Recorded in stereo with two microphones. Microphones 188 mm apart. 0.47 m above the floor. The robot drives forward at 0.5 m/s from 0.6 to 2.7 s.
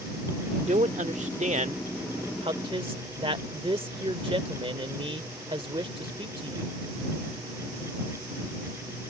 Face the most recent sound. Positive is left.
turn(degrees=-30)  # may be behind; listen again after turning